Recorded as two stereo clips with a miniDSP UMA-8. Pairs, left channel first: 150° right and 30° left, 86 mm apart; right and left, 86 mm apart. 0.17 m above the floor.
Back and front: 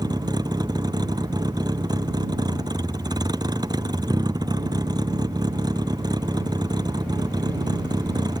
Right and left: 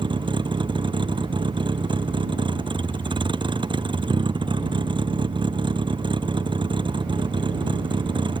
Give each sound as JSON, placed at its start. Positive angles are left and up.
{"t": 0.0, "sound": "a vehicle", "azimuth_deg": 70}